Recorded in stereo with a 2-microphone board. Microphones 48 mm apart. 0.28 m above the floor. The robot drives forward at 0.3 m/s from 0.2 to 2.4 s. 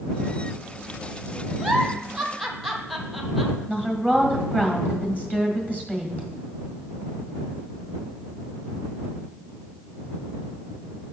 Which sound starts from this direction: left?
A woman speaking, at 3.7 s.